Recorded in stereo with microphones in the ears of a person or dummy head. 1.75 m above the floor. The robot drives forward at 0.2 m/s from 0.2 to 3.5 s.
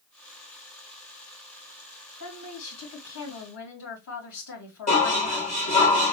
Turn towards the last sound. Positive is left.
turn(degrees=40)  # may be behind; listen again after turning